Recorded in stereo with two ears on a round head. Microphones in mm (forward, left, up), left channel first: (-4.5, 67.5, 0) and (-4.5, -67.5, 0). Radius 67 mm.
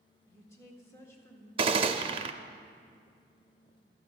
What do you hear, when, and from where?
0.3 s a woman speaking: 20° left (ahead or behind), 1.7 m
1.6 s a gunshot: 35° right (ahead or behind), 0.5 m